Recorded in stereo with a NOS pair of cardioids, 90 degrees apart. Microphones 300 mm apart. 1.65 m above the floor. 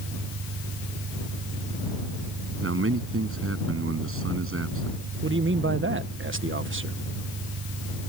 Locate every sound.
0.0 s an engine running: 55° right
2.6 s a man speaking: 45° right
5.2 s a man speaking: 40° right